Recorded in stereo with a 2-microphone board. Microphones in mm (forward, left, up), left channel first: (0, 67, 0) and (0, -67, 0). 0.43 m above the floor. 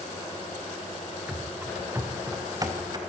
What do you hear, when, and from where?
1.3 s running footsteps: 10° right (ahead or behind), 3.5 m; by 3.0 s 35° right (ahead or behind), 4 m